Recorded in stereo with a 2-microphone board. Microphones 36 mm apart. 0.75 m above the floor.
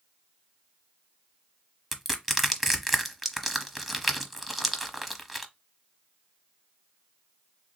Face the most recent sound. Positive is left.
turn(degrees=-5)  # may be behind; listen again after turning